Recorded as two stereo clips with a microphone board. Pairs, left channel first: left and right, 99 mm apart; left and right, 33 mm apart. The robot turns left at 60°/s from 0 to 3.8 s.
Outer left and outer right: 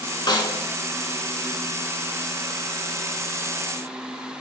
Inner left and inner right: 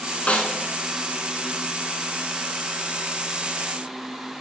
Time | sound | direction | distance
0.3 | a snare drum | 45° left (ahead or behind) | 0.9 m